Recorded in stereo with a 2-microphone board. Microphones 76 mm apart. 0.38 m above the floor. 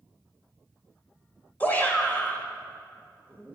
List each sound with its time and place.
1.6 s a shout: 20° left (ahead or behind), 1.6 m